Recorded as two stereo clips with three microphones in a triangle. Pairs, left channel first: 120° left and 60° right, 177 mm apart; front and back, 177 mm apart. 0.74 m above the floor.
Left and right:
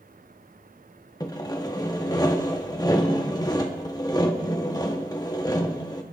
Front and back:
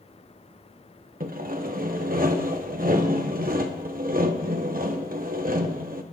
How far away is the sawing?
About 1.0 m.